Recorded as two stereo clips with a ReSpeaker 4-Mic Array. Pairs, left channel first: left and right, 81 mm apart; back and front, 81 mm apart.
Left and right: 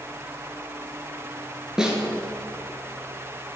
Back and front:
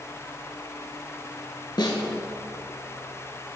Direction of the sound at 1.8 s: 170° right.